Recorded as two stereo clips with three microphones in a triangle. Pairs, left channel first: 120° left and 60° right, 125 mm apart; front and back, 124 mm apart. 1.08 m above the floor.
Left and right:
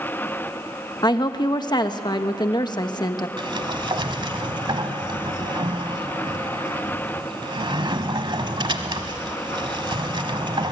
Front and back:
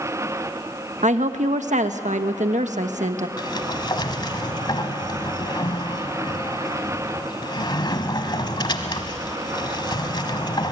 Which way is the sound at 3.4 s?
35° right.